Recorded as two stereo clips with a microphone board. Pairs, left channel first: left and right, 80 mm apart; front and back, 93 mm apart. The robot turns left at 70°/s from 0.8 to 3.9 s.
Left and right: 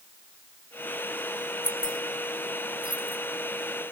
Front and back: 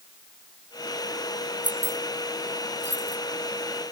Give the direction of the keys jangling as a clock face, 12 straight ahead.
8 o'clock.